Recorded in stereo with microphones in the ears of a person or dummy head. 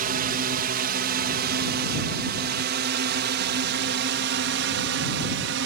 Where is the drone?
45° right (ahead or behind); by 5.7 s 60° right (ahead or behind).